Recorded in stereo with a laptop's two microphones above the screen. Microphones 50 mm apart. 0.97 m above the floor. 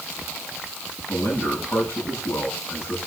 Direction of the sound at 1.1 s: 80° left.